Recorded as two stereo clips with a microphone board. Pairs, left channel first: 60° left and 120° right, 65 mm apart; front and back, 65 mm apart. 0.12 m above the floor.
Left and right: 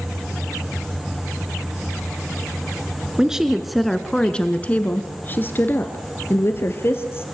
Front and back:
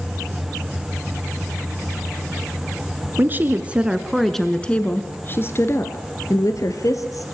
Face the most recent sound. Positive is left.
turn(degrees=15)